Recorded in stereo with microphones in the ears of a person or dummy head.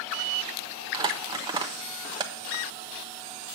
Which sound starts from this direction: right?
Crumpling, at 0.9 s.